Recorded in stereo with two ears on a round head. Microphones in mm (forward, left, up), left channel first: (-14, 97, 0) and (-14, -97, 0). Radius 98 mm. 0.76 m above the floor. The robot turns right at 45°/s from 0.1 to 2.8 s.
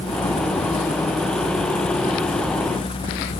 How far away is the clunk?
I don't hear a clunk.